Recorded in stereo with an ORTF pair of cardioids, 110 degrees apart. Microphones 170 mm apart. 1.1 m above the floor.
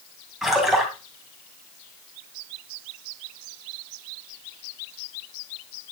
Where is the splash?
5° right, 3 m.